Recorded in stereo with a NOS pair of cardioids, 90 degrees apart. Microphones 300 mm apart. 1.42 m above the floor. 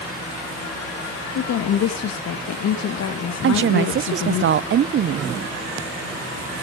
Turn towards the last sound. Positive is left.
turn(degrees=-45)